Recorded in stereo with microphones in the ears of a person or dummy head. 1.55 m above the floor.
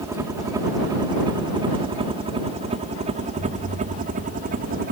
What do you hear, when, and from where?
0.0 s a helicopter: 15° right (ahead or behind); by 4.9 s 45° right (ahead or behind)
3.4 s an explosion: 60° left (ahead or behind)